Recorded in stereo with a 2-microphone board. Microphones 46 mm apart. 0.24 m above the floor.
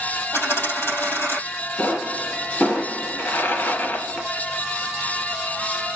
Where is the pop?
60° left (ahead or behind), 2 m.